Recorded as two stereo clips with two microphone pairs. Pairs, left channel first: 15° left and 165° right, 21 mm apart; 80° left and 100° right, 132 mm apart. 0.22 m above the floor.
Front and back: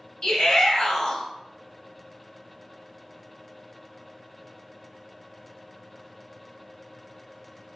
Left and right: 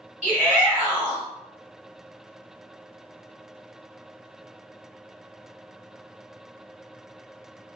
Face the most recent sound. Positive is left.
turn(degrees=-30)